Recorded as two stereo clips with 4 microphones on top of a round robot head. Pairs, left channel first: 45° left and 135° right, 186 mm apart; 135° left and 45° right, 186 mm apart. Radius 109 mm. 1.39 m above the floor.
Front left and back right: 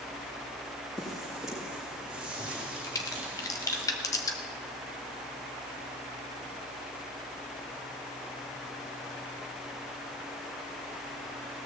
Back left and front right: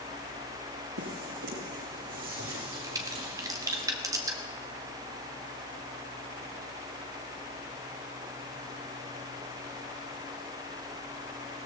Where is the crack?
Straight ahead, 0.6 m.